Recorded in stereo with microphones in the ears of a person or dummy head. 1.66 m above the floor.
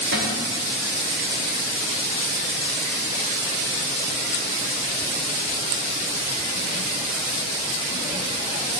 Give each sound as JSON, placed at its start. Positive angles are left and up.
{"t": 0.1, "sound": "a cupboard door", "side_deg": -70, "distance_m": 3.0}